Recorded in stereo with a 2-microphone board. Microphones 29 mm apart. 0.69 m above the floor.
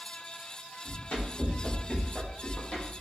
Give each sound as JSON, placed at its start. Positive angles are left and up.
{"t": 0.8, "sound": "running footsteps", "side_deg": 60, "distance_m": 1.7}